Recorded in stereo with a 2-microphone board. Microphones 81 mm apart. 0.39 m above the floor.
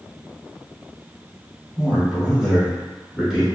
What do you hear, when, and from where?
1.8 s a man speaking: 10° right (ahead or behind), 1.0 m